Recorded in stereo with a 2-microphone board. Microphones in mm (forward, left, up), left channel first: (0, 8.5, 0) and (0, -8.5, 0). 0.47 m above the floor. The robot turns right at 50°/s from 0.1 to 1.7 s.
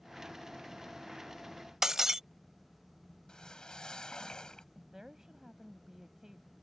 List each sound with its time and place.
1.8 s breaking glass: 25° right (ahead or behind)
3.3 s a whoosh: 55° left (ahead or behind)
4.8 s a woman speaking: 35° right (ahead or behind)